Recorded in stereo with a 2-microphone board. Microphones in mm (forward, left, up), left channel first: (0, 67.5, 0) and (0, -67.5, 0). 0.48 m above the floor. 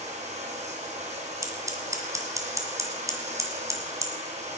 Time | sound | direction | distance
0.0 | running water | 55° right (ahead or behind) | 4 m
1.4 | scissors | 25° right (ahead or behind) | 2.0 m